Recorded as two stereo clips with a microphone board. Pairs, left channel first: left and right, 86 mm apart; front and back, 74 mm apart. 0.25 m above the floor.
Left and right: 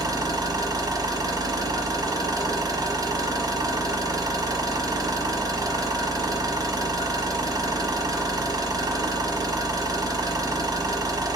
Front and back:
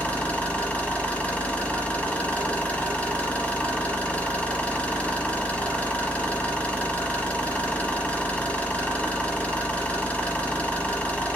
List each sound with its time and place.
0.0 s an engine running: 70° right, 1.0 m